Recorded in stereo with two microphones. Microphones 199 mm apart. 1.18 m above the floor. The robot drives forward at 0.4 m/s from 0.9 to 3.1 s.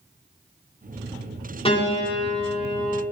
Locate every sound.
1.6 s a piano: 30° left (ahead or behind), 2.5 m; by 3.0 s 35° left (ahead or behind), 2 m